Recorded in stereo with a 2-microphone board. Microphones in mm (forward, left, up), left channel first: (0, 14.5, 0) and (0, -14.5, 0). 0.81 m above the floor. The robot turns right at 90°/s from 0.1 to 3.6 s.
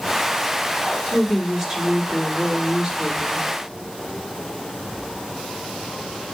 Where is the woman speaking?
140° left, 2.5 m; by 3.5 s straight ahead, 2.5 m.